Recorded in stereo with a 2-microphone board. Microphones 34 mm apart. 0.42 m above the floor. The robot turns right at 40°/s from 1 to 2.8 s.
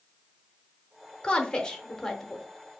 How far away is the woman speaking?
About 0.8 m.